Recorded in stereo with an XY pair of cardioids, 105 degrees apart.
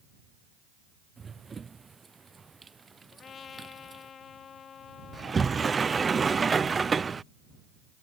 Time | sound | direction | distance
1.2 | running footsteps | 30° right | ?
3.1 | a trumpet | 50° left | ?
5.1 | a sliding door | 30° right | ?